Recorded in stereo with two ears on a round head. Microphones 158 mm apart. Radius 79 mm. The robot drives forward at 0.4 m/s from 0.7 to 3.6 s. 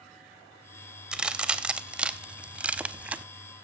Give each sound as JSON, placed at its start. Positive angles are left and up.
{"t": 1.1, "sound": "a crack", "side_deg": -5, "distance_m": 1.5}